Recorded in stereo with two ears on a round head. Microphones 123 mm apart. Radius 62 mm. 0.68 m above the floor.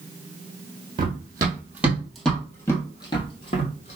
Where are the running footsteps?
35° right (ahead or behind), 1.3 m; by 4.0 s 50° left (ahead or behind), 1.5 m.